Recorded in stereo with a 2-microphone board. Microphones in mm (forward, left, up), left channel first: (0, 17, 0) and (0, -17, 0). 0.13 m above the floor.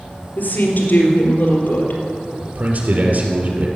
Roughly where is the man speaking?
Right.